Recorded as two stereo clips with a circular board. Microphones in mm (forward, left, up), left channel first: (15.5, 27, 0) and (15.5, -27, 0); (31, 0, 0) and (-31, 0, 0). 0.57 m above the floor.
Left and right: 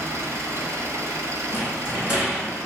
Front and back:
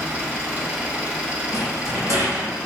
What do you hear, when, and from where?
0.0 s an engine running: 115° right, 1.4 m
1.5 s a rattle: 165° right, 2.5 m